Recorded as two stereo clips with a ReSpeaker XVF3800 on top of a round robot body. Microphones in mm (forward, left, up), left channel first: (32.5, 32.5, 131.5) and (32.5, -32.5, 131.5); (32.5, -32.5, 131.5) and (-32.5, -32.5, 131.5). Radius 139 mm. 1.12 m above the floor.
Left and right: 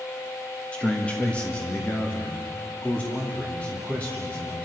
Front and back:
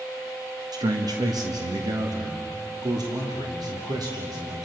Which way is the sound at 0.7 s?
165° left.